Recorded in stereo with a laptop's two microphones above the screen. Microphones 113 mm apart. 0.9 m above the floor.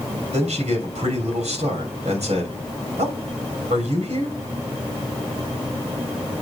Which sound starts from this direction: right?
A man speaking, at 0.3 s.